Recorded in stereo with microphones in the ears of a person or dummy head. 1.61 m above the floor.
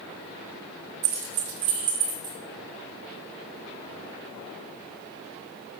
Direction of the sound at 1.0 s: 45° right (ahead or behind).